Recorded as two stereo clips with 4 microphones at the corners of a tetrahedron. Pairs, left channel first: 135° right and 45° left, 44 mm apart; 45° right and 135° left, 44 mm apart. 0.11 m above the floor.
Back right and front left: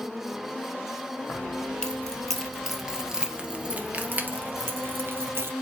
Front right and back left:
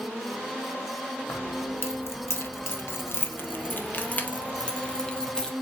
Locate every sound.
1.3 s keys jangling: 70° right, 2 m; by 5.5 s 30° left, 2 m